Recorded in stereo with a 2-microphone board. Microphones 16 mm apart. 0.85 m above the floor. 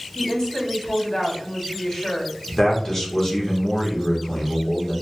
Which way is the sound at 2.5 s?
35° left (ahead or behind).